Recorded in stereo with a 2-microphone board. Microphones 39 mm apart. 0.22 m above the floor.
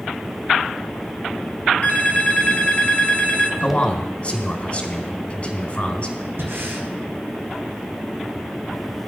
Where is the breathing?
70° right (ahead or behind), 1.9 m.